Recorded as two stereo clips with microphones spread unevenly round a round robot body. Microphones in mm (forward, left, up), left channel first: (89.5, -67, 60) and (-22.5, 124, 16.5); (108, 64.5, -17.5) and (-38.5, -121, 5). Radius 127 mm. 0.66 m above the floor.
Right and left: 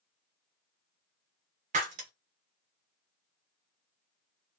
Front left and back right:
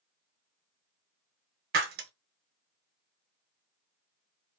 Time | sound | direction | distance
1.7 | breaking glass | 175° right | 0.7 m